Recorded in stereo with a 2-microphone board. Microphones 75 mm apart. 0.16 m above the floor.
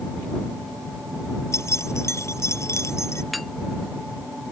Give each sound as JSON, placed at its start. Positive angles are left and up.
{"t": 1.5, "sound": "keys jangling", "side_deg": 40}
{"t": 3.3, "sound": "a clink", "side_deg": 0}